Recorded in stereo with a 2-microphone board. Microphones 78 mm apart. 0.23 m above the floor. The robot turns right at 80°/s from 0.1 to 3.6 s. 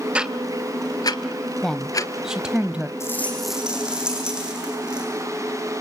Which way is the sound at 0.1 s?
15° right (ahead or behind).